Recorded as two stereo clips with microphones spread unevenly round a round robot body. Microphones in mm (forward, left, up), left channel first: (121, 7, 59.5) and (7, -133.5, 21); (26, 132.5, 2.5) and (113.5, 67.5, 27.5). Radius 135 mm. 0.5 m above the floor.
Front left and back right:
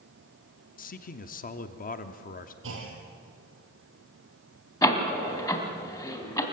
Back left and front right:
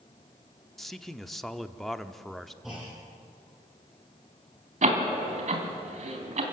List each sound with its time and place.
0.8 s a man speaking: 75° left, 1.0 m
2.6 s a clunk: 125° right, 3.5 m
4.8 s a door slam: 20° right, 3 m